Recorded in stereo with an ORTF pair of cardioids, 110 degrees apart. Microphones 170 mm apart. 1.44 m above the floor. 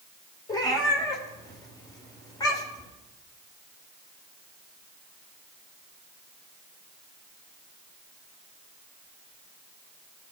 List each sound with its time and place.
0.5 s a cat meowing: 25° left, 2.5 m